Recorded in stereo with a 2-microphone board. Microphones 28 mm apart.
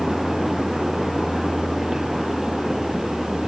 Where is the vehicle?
5° left (ahead or behind); by 3.5 s centre (ahead or behind).